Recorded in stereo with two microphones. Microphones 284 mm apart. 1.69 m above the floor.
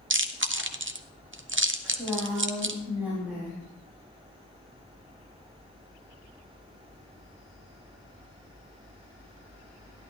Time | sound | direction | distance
0.1 | chewing | 45° right (ahead or behind) | 0.6 m
1.8 | a woman speaking | 5° right (ahead or behind) | 3.5 m